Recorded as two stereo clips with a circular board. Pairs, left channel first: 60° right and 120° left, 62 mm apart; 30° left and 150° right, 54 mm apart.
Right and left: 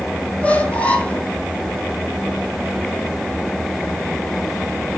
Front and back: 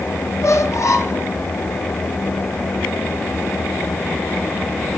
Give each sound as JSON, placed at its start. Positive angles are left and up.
{"t": 0.4, "sound": "a squeak", "azimuth_deg": 10, "distance_m": 1.3}